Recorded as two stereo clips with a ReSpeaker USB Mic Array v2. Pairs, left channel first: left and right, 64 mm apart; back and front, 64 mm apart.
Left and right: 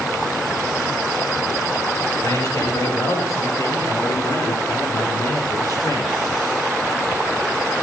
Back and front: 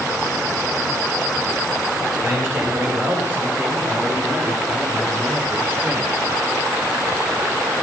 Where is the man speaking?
65° left, 5.5 m; by 6.2 s 60° left, 7.5 m.